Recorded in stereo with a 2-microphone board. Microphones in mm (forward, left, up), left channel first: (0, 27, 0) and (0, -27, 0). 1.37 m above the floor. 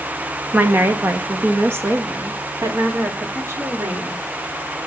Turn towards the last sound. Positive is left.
turn(degrees=-50)  # may be behind; listen again after turning